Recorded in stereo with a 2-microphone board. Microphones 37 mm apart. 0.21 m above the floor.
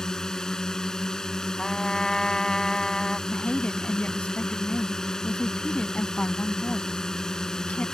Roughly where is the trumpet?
Centre.